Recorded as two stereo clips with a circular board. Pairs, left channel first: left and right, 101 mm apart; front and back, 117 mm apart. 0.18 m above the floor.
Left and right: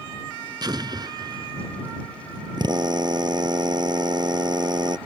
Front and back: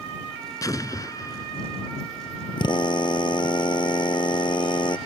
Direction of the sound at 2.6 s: 45° right.